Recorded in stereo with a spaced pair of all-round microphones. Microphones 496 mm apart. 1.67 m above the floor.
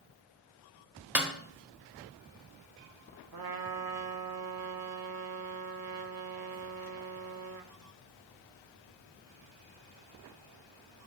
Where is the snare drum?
5° right (ahead or behind), 0.9 m.